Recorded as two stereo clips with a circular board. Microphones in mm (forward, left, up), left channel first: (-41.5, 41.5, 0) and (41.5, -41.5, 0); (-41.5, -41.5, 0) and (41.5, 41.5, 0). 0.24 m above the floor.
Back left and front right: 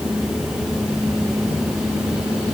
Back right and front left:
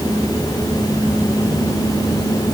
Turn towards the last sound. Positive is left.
No sound to turn to.